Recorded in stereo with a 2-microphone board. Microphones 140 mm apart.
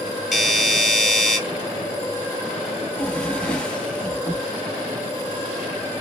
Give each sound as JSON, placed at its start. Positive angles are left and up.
{"t": 0.3, "sound": "a doorbell", "side_deg": 0, "distance_m": 2.0}
{"t": 2.8, "sound": "a drawer", "side_deg": 5, "distance_m": 0.8}